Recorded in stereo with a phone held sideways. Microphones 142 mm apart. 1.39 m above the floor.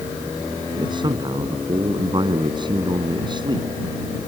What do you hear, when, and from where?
0.8 s a man speaking: 30° right (ahead or behind)